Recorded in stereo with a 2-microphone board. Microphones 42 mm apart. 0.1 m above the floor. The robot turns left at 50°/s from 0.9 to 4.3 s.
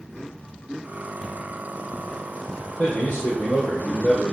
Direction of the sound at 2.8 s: 135° left.